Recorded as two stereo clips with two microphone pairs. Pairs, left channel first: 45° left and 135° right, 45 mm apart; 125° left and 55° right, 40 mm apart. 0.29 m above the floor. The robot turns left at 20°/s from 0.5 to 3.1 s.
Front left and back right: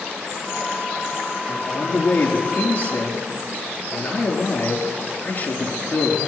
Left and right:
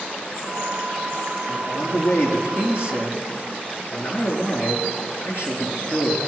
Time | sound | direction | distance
1.5 | a man speaking | 130° left | 4.5 m